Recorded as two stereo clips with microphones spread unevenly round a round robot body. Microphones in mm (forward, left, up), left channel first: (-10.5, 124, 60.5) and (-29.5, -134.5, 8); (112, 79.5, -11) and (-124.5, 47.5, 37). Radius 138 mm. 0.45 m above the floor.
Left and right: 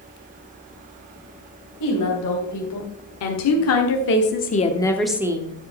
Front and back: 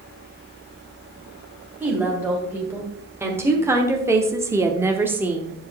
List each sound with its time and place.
1.8 s a woman speaking: 100° left, 3 m; by 5.7 s 75° right, 1.2 m